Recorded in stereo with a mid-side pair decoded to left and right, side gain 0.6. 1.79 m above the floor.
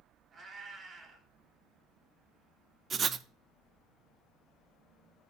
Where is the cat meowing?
30° right, 4.5 m.